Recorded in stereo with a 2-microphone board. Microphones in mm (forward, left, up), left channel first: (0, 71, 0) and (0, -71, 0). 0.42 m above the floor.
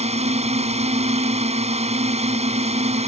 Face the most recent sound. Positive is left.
turn(degrees=-50)  # may be behind; listen again after turning